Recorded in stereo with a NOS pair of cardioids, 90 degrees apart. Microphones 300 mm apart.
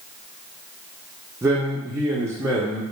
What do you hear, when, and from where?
1.4 s a man speaking: 10° right, 0.5 m